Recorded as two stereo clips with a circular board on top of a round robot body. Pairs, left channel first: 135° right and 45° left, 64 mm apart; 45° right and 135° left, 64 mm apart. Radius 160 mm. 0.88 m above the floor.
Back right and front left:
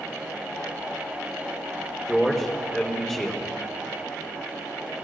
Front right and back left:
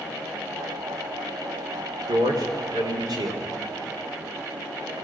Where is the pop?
I don't hear a pop.